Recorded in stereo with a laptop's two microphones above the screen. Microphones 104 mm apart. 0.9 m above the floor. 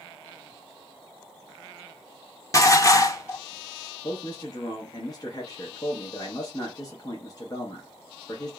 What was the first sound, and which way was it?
Dishes clattering, 30° left (ahead or behind).